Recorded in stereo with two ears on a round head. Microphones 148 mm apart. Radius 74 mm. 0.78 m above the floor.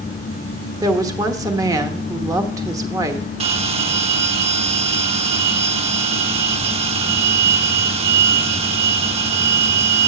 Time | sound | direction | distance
0.8 | a woman speaking | 25° right (ahead or behind) | 0.9 m
3.4 | a bell | 40° right (ahead or behind) | 0.8 m